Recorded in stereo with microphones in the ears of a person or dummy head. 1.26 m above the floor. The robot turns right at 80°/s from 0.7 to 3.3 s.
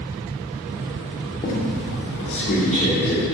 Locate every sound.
1.4 s a squeak: 35° left, 2.5 m; by 3.2 s straight behind, 2.5 m